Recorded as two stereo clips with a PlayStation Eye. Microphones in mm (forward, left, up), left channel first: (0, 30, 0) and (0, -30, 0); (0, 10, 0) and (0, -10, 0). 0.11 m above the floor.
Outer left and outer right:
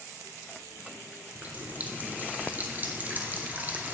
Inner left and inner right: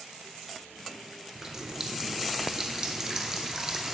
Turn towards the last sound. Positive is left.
turn(degrees=-30)  # may be behind; listen again after turning